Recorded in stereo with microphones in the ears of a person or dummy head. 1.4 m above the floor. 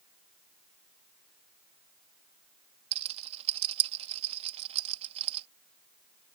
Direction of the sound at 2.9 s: 35° right (ahead or behind).